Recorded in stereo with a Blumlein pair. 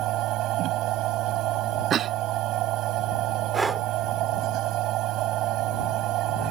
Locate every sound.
0.0 s a machine running: 35° right
1.9 s a cough: 25° right
3.5 s breathing: 10° right